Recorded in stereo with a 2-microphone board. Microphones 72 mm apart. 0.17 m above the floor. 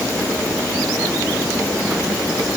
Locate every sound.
Only background noise.